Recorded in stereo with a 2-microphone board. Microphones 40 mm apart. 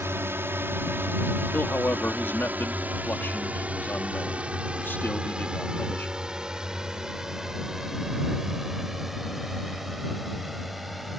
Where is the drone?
70° right (ahead or behind); by 11.2 s centre (ahead or behind).